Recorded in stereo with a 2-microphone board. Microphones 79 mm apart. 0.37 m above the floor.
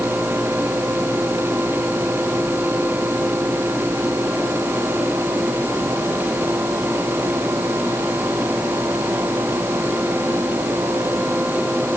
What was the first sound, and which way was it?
Only background noise.